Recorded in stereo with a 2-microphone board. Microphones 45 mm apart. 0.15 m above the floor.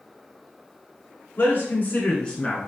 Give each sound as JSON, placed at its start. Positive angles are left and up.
{"t": 1.4, "sound": "a man speaking", "side_deg": 45, "distance_m": 1.5}